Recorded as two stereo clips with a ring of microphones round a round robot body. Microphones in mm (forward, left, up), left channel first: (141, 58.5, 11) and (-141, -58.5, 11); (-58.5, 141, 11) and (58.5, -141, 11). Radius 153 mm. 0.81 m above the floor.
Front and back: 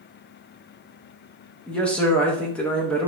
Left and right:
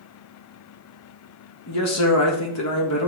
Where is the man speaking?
110° left, 1.1 m.